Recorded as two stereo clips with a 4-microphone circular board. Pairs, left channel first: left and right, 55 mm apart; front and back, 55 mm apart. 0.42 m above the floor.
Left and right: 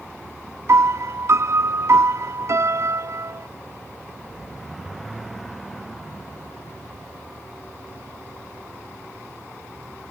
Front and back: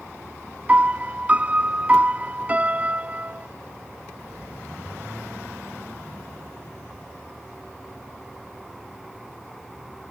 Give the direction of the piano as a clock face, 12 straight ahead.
4 o'clock.